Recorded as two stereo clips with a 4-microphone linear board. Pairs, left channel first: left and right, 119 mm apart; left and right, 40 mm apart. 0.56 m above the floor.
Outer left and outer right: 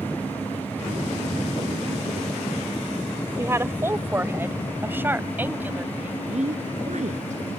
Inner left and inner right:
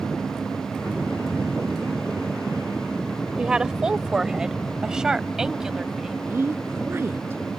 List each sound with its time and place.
3.4 s a woman speaking: 25° right (ahead or behind); by 6.2 s 15° right (ahead or behind)
6.3 s a woman speaking: 80° right